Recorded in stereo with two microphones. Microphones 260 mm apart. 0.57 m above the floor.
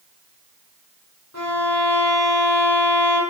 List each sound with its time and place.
1.3 s a violin: 85° left, 4.5 m